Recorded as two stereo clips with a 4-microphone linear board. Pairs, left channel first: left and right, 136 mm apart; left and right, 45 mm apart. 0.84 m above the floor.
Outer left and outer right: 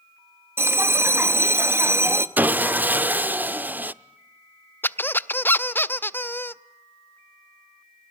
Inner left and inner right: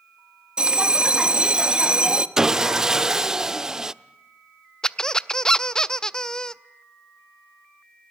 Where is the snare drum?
No snare drum in this recording.